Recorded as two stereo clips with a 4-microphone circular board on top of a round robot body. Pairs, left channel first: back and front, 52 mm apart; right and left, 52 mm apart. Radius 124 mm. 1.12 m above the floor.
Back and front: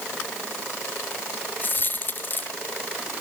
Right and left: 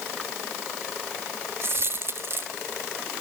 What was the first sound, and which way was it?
A dropped coin, 130° left.